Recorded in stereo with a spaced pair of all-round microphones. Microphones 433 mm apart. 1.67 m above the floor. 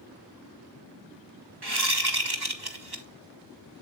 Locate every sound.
1.6 s a whoosh: 60° right (ahead or behind), 1.4 m